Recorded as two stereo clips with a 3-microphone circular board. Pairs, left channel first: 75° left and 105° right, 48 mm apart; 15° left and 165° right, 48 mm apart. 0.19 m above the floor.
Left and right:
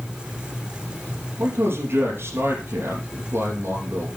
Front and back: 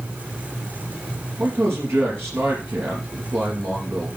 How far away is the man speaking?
About 3.5 m.